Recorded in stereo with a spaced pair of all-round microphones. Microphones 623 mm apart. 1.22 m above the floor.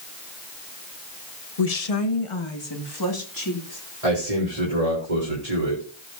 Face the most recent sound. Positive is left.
turn(degrees=-75)  # may be behind; listen again after turning